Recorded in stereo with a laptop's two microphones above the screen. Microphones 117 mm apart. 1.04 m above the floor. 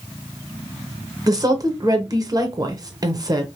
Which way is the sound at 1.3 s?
35° right (ahead or behind).